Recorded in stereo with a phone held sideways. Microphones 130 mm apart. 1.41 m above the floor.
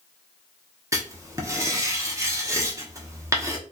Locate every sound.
0.9 s writing: 25° right (ahead or behind), 0.9 m